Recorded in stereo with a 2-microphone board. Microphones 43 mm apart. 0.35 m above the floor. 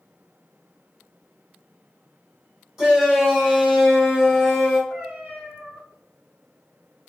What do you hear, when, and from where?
2.8 s a shout: 15° right (ahead or behind), 1.2 m
4.9 s a cat meowing: 35° right (ahead or behind), 1.6 m